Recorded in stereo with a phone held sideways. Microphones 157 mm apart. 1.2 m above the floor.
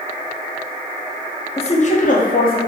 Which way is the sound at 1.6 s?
35° left (ahead or behind).